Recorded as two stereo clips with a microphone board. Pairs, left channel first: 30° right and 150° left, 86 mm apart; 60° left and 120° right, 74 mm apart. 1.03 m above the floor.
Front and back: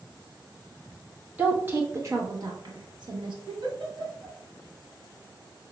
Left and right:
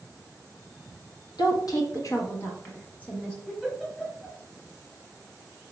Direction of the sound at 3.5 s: 135° left.